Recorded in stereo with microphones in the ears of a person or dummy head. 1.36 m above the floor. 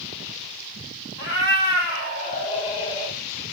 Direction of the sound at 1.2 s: 50° left (ahead or behind).